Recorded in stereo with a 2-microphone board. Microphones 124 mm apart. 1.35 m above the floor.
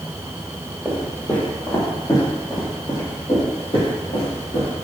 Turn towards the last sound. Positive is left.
turn(degrees=60)  # may be behind; listen again after turning